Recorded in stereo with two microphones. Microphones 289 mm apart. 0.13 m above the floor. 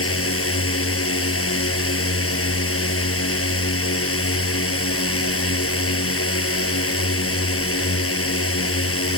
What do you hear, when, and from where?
0.0 s a drone: 50° left (ahead or behind)